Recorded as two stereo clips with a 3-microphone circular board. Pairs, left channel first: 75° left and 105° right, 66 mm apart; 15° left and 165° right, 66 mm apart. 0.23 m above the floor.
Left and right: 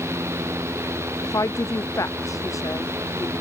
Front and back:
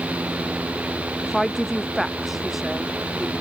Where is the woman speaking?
105° left; by 3.3 s 110° left.